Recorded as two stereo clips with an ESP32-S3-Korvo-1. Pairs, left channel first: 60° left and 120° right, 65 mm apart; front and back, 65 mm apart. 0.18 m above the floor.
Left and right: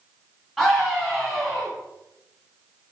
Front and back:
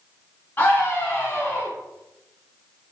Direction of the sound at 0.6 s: 35° right.